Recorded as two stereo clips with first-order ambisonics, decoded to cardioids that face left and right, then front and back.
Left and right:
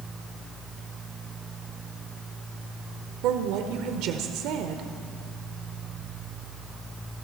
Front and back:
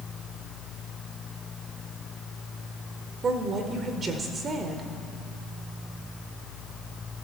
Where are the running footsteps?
No running footsteps in this recording.